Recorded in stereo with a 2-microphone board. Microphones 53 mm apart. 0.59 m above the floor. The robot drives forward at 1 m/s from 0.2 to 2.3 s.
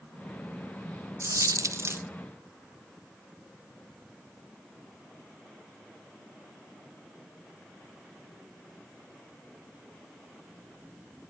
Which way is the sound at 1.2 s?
55° right (ahead or behind).